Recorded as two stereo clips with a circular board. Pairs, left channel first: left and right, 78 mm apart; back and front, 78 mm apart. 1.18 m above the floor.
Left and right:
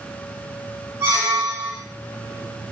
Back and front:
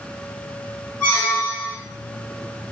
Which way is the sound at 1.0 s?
125° right.